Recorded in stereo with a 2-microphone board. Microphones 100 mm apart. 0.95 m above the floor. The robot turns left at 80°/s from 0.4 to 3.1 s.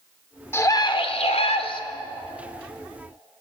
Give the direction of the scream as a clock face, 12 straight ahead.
7 o'clock.